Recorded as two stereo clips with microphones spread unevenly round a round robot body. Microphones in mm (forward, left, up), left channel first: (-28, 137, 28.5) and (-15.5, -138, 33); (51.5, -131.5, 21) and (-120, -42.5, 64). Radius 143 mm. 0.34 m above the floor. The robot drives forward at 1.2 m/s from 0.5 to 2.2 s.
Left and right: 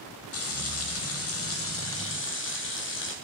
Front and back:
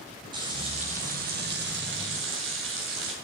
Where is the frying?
80° left, 2.5 m; by 3.1 s 130° left, 3 m.